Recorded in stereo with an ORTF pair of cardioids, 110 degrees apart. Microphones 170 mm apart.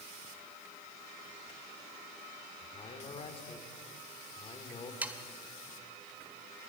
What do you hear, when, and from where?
2.6 s a man speaking: 35° left, 3.5 m
5.0 s sawing: 10° right, 1.7 m